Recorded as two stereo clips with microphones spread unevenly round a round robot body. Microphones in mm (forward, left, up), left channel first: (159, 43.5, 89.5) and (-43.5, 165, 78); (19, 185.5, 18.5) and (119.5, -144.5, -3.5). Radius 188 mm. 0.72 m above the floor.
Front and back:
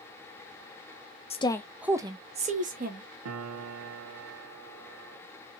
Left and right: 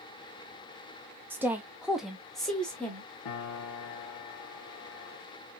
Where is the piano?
155° left, 0.8 m.